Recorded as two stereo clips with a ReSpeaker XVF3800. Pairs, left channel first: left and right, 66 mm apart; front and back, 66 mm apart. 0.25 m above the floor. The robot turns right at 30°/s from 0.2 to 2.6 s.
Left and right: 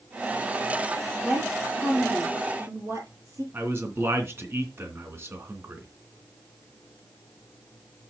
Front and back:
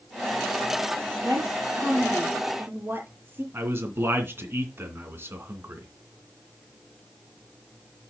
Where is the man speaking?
135° right, 2.5 m.